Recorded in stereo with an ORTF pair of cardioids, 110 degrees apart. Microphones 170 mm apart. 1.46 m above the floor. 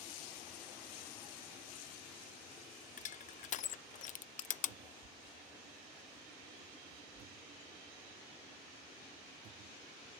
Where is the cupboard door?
60° right.